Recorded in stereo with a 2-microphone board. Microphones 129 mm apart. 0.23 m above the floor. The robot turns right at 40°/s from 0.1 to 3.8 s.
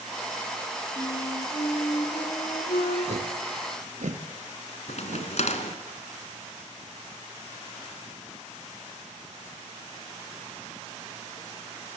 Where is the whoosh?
65° right (ahead or behind), 2 m; by 5.3 s 75° right (ahead or behind), 2 m.